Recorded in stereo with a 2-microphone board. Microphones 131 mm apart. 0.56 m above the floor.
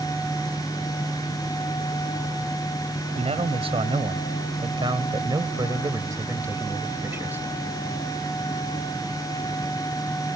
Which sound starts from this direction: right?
A man speaking, at 3.2 s.